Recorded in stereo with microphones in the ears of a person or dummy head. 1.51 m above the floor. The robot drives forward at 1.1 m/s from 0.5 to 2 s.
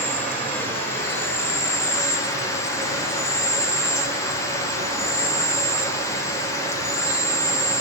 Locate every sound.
0.0 s an insect: 10° left (ahead or behind), 4.5 m; by 7.8 s 15° left (ahead or behind), 3 m